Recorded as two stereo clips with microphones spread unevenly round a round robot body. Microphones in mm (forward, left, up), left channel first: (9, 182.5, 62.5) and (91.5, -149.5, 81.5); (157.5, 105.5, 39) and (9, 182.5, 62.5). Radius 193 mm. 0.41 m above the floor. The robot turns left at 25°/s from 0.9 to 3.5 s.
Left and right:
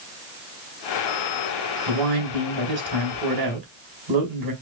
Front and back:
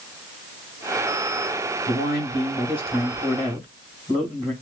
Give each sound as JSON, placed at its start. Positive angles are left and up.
{"t": 1.9, "sound": "a man speaking", "azimuth_deg": -70, "distance_m": 3.5}